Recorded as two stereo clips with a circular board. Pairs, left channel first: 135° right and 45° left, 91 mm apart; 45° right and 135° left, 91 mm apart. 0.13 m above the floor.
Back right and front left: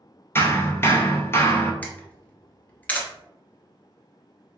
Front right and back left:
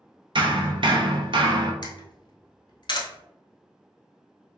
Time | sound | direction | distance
0.3 | hammering | 160° left | 0.7 m
1.8 | a camera shutter | 65° right | 1.0 m